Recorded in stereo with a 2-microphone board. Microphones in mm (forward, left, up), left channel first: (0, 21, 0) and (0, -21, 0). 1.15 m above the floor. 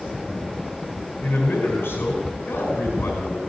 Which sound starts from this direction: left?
A man speaking, at 1.2 s.